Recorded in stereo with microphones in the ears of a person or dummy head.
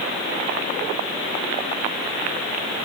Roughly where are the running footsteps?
I don't hear running footsteps.